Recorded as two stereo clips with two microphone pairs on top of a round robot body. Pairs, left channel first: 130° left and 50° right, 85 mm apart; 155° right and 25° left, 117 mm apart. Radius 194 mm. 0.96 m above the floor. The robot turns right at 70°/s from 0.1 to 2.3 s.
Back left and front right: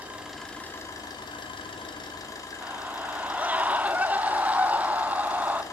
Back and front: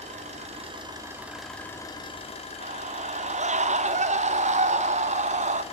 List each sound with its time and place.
0.0 s an engine running: 25° left, 2.5 m; by 5.7 s straight behind, 2.5 m
2.6 s a scream: 25° left, 0.9 m